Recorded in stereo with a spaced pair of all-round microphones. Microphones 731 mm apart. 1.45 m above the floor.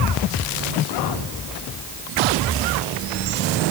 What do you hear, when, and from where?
Only background noise.